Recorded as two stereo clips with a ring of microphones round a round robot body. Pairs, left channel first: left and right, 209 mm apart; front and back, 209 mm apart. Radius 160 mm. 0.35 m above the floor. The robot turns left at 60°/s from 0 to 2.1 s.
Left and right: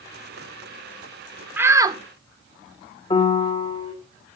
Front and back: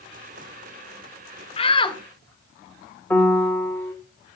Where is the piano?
75° left, 1.4 m.